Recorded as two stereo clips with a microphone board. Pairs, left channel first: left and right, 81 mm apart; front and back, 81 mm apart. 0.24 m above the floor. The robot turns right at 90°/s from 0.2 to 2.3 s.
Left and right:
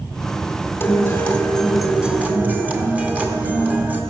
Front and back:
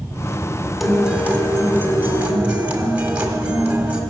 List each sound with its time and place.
0.8 s a guitar: 95° left, 1.5 m; by 4.0 s 130° right, 1.5 m